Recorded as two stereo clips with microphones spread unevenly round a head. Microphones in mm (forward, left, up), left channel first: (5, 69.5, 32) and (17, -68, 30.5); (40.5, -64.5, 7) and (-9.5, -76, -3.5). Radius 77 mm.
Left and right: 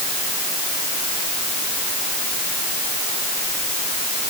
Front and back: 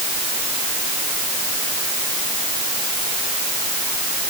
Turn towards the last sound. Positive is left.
No sound to turn to.